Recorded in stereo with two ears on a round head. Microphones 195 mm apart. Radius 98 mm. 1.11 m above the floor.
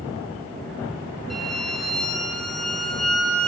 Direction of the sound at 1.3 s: Centre (ahead or behind).